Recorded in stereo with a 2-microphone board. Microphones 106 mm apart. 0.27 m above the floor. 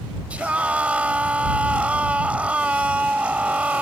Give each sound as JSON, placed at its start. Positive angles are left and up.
{"t": 0.3, "sound": "a scream", "side_deg": -15}